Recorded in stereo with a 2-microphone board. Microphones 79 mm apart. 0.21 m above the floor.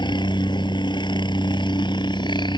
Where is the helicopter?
70° left (ahead or behind).